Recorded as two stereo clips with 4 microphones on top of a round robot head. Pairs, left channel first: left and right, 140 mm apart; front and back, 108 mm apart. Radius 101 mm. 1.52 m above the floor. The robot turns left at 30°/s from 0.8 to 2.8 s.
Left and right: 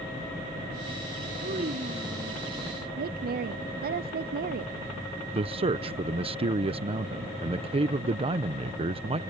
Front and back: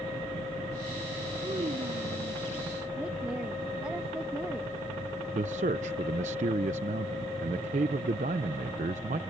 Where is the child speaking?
120° right; by 2.4 s 155° right.